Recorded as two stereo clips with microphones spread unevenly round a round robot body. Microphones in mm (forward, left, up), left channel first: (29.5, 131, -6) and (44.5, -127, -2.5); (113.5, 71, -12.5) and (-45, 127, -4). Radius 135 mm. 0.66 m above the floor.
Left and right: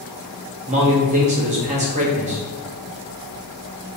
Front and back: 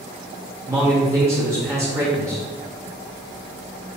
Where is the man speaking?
130° right, 0.7 m.